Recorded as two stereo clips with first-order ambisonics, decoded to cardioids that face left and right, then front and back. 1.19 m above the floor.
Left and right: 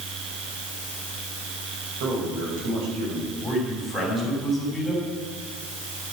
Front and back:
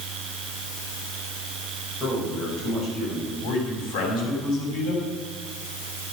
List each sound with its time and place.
2.0 s a man speaking: 65° right, 5.5 m
3.4 s a man speaking: 10° right, 6.5 m